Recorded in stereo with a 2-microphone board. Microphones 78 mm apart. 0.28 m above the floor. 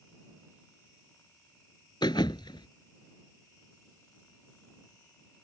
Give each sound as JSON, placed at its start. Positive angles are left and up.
{"t": 2.0, "sound": "a thud", "side_deg": 80}